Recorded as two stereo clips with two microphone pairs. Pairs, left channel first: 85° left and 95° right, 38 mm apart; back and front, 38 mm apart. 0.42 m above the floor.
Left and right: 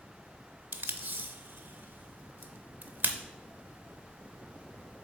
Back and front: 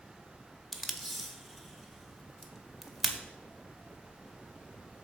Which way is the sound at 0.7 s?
95° right.